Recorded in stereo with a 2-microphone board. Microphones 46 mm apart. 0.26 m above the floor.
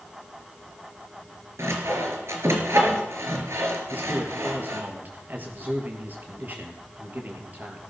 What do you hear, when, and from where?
1.6 s sawing: 65° right (ahead or behind), 4 m
3.9 s a man speaking: 40° right (ahead or behind), 5.5 m